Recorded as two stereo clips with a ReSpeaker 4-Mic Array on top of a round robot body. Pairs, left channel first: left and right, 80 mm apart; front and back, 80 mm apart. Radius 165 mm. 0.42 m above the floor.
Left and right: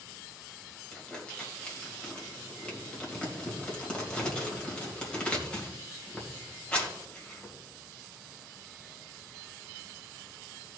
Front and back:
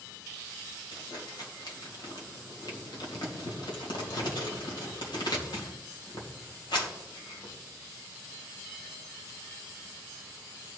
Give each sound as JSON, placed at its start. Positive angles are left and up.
{"t": 0.9, "sound": "crumpling", "azimuth_deg": 15, "distance_m": 3.0}